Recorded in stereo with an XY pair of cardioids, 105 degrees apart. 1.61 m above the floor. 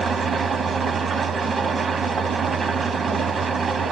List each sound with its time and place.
0.0 s an engine running: 40° right, 0.8 m